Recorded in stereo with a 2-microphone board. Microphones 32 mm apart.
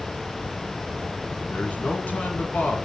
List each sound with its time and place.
1.5 s a man speaking: 50° left (ahead or behind), 2.5 m